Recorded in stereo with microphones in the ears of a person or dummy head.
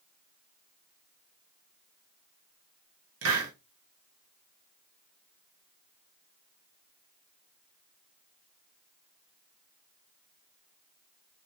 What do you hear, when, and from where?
3.2 s a hiss: 80° right, 0.8 m